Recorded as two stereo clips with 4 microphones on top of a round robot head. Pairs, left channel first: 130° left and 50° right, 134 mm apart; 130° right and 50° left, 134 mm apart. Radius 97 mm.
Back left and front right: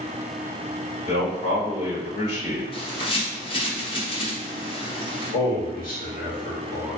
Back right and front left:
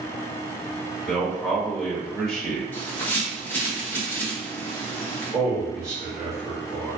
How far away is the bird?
About 1.1 m.